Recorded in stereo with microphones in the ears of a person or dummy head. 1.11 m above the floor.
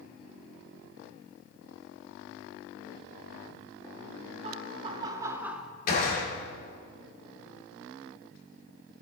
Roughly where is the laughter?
Right.